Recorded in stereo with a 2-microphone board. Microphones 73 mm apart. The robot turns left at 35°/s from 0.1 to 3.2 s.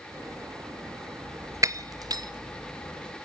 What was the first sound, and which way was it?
Breaking glass, 45° right (ahead or behind).